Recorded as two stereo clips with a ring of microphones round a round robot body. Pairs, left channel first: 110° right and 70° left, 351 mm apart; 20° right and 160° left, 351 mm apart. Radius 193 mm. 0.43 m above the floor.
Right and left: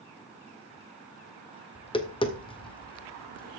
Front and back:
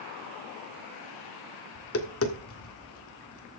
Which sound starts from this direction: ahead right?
Tapping, at 1.8 s.